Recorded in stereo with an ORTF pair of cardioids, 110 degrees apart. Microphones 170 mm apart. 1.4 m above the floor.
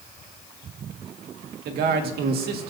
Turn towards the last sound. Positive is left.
turn(degrees=-65)